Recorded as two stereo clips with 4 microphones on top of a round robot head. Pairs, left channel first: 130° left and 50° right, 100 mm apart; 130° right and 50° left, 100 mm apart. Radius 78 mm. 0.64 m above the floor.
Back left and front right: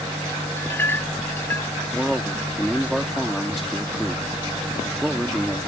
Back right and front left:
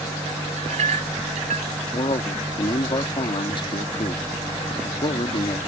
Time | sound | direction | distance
0.6 | a clink | 60° left | ?
1.9 | a man speaking | 140° right | ?